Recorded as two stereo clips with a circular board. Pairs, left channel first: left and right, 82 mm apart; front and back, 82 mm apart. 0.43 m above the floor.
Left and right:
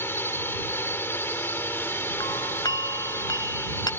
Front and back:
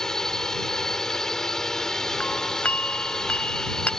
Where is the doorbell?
70° left.